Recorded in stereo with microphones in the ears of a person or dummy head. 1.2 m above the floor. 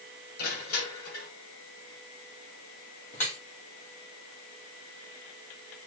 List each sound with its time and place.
0.4 s crushing: 55° left (ahead or behind), 6 m
3.1 s dripping: 45° left (ahead or behind), 2.5 m